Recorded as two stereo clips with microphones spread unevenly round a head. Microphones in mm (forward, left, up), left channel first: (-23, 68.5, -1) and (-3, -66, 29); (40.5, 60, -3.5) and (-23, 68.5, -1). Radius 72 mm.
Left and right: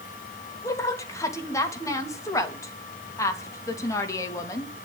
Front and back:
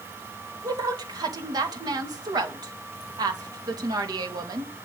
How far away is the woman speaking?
About 3 m.